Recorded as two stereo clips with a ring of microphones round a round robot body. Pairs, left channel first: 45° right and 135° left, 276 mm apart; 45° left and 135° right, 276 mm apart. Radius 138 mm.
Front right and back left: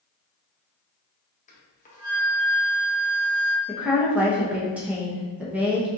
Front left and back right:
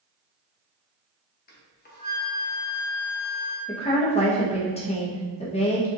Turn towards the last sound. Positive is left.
turn(degrees=60)